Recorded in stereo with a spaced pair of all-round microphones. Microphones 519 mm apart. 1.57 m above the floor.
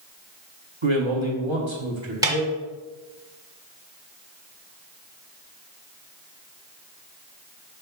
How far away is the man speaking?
About 1.6 m.